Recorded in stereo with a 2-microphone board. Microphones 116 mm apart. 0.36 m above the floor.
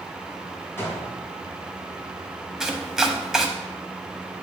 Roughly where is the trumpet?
I don't hear a trumpet.